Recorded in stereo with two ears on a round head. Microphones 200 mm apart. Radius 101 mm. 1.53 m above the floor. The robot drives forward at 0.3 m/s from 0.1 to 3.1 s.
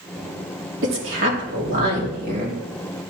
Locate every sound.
0.8 s a woman speaking: 60° right (ahead or behind), 3 m; by 2.6 s 50° right (ahead or behind), 3.5 m